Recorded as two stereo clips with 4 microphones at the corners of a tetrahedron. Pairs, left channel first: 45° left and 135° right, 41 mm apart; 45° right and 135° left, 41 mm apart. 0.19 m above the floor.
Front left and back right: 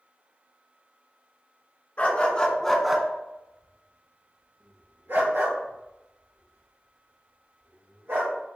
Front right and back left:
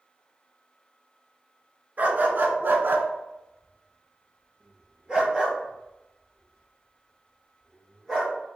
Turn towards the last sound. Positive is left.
turn(degrees=-140)